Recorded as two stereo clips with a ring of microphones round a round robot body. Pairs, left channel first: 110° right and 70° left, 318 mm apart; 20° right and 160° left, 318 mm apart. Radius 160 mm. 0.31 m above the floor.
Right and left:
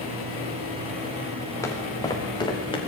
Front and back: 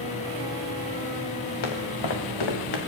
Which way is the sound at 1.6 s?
30° right.